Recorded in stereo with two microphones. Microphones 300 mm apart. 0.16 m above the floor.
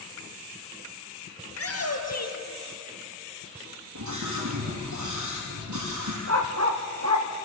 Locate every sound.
1.5 s a shout: 50° left (ahead or behind), 3 m; by 2.8 s 70° left (ahead or behind), 3.5 m
4.0 s a scream: 75° right (ahead or behind), 5.5 m
6.3 s a dog barking: 60° right (ahead or behind), 3 m